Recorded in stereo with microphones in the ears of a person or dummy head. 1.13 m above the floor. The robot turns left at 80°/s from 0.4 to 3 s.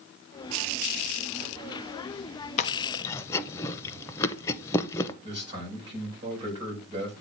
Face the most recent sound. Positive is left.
turn(degrees=-25)  # may be behind; listen again after turning